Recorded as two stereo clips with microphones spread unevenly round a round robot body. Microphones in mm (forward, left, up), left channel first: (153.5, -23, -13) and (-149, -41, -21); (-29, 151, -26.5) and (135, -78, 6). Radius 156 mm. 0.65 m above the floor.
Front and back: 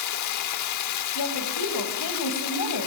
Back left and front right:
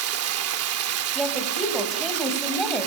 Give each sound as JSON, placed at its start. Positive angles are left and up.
{"t": 0.0, "sound": "running water", "azimuth_deg": -20, "distance_m": 1.4}
{"t": 1.1, "sound": "a woman speaking", "azimuth_deg": 35, "distance_m": 4.5}